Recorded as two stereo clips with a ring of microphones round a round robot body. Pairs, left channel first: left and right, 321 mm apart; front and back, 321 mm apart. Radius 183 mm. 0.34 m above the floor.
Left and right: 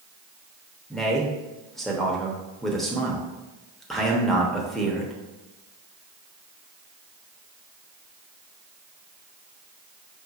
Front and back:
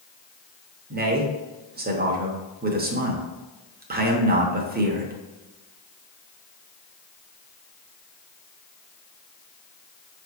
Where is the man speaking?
Straight behind, 0.9 m.